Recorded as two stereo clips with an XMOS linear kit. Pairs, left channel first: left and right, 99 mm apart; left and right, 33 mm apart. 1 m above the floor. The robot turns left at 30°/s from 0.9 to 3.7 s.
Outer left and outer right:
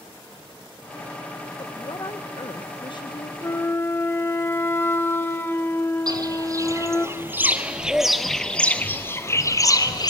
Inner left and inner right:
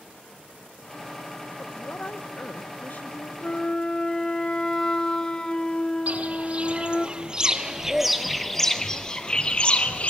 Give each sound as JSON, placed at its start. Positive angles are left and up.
{"t": 1.6, "sound": "a woman speaking", "azimuth_deg": 120, "distance_m": 0.6}
{"t": 3.4, "sound": "a flute", "side_deg": 30, "distance_m": 0.6}
{"t": 6.1, "sound": "footsteps", "side_deg": -45, "distance_m": 1.6}